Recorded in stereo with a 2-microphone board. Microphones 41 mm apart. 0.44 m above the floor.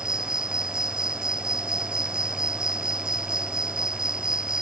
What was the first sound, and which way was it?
An insect, 20° right (ahead or behind).